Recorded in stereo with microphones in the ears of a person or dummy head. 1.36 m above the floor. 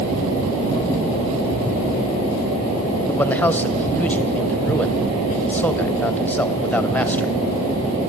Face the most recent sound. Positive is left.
turn(degrees=5)  # may be behind; listen again after turning